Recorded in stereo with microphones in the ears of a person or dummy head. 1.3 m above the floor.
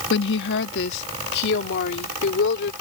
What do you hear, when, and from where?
0.1 s a woman speaking: 65° left (ahead or behind)